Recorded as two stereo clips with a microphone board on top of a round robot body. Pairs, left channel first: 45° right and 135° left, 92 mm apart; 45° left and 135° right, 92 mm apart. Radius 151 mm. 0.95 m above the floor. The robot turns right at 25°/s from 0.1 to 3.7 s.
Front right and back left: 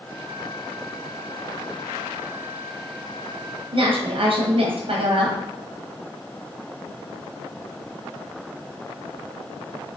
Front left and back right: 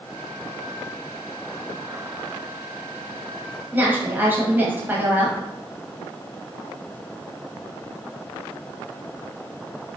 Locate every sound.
3.7 s a woman speaking: 155° left, 0.9 m